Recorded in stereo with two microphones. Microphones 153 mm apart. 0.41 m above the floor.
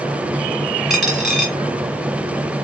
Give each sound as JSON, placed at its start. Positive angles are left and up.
{"t": 0.9, "sound": "a dropped coin", "side_deg": 0, "distance_m": 2.0}